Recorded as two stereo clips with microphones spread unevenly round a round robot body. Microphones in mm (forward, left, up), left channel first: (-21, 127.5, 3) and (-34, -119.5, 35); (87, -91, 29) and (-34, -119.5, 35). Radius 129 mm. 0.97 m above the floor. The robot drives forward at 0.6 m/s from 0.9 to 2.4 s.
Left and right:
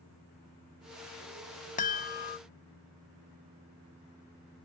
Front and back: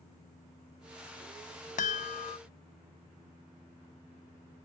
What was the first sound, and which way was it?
A chime, 30° left.